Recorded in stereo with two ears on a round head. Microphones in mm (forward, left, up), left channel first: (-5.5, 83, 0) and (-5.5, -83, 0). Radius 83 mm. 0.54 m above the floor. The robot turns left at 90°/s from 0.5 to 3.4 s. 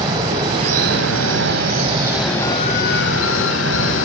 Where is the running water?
20° right, 5 m; by 4.0 s 80° left, 5 m.